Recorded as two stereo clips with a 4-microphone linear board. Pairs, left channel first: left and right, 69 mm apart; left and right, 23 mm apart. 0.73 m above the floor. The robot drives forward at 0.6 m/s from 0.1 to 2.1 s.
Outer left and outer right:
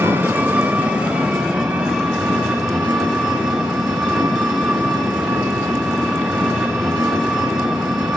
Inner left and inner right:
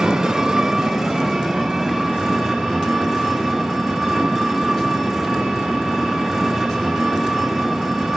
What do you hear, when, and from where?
0.0 s an engine running: 35° right (ahead or behind), 0.7 m; by 8.2 s 10° right (ahead or behind), 1.8 m